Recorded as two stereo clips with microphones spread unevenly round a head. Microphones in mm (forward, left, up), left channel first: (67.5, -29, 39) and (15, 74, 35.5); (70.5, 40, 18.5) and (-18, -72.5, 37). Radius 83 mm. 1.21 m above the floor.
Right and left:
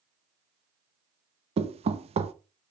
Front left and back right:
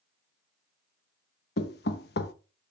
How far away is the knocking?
About 0.7 m.